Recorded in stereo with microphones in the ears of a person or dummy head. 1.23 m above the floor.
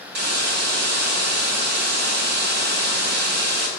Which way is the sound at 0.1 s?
60° right (ahead or behind).